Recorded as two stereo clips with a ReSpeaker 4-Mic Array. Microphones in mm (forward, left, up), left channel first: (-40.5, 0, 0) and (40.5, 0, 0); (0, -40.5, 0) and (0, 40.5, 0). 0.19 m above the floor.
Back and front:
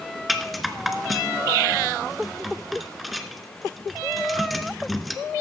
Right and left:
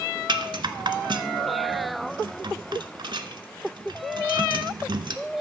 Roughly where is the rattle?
Left.